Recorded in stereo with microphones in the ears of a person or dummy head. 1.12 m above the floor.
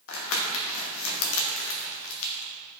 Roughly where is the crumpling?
Left.